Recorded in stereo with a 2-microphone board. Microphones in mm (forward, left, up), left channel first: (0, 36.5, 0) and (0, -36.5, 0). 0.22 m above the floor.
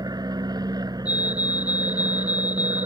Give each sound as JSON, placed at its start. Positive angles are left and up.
{"t": 0.0, "sound": "an aircraft", "side_deg": -60}
{"t": 1.1, "sound": "a fire alarm", "side_deg": 65}